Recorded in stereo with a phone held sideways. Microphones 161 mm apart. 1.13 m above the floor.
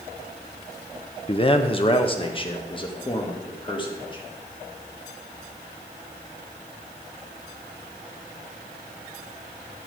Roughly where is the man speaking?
Left.